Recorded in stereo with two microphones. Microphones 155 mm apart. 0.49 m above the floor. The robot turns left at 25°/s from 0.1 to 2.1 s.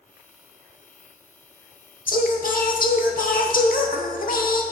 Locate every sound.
2.1 s singing: 65° left (ahead or behind), 0.8 m